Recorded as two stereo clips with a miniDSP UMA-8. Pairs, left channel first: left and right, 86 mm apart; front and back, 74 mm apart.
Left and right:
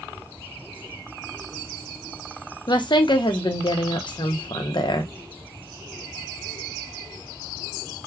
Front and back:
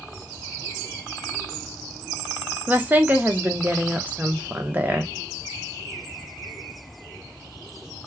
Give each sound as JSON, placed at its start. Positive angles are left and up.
{"t": 2.7, "sound": "a woman speaking", "azimuth_deg": 115, "distance_m": 0.6}